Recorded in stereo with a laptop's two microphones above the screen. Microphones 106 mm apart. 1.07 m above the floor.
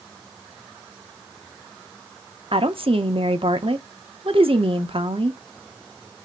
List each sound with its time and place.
2.5 s a woman speaking: 55° right (ahead or behind), 0.8 m